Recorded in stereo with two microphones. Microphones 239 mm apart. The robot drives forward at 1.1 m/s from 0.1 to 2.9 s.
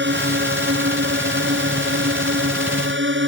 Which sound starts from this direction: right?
A drone, at 0.0 s.